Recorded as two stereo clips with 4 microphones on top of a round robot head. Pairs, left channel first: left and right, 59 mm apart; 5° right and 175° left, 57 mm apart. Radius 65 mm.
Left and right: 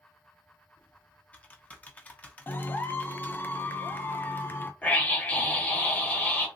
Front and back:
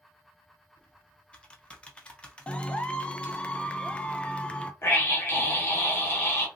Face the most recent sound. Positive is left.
turn(degrees=25)